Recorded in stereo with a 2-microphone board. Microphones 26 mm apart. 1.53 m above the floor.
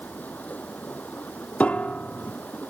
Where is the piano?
55° left (ahead or behind).